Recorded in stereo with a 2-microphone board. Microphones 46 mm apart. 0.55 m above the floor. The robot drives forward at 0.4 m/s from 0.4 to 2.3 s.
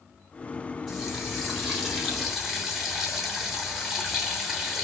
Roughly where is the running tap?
Centre.